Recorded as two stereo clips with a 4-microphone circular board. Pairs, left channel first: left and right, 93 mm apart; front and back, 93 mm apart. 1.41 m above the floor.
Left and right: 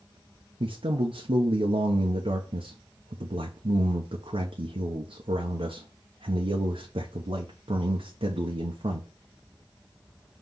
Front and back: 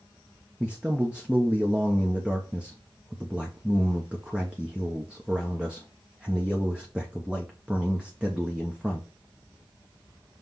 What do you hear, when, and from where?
0.6 s a man speaking: 100° right, 0.8 m